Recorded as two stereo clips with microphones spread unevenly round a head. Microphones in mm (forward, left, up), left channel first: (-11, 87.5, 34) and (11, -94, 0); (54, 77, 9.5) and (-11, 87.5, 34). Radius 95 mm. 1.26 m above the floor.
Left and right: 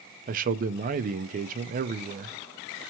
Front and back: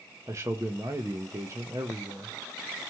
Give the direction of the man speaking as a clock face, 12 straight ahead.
4 o'clock.